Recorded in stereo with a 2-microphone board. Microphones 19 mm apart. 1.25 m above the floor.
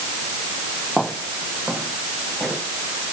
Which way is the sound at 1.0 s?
45° right (ahead or behind).